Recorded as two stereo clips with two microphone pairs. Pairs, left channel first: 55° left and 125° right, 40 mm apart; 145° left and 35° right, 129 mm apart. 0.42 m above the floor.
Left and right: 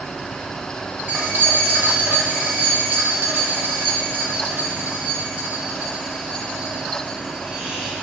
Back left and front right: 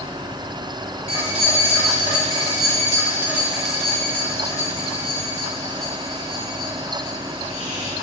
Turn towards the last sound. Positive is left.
turn(degrees=160)